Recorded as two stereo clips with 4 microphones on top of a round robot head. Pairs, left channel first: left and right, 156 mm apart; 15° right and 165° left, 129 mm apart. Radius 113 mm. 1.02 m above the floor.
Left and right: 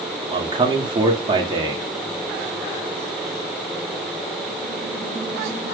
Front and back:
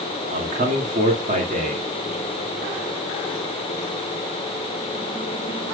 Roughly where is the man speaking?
Behind right.